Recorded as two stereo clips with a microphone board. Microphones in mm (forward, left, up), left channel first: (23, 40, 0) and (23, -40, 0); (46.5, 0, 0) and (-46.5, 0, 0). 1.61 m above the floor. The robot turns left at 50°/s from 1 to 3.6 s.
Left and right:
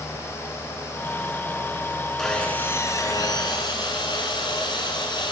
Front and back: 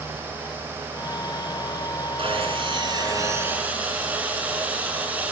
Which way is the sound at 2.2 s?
Straight behind.